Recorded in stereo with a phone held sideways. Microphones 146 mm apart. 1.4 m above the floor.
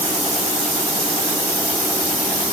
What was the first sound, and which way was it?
Only background noise.